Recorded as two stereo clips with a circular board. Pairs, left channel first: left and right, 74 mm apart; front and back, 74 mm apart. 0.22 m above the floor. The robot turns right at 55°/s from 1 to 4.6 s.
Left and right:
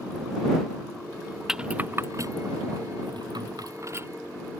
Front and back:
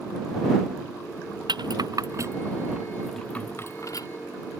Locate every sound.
1.5 s a rattle: 175° right; by 4.1 s 35° right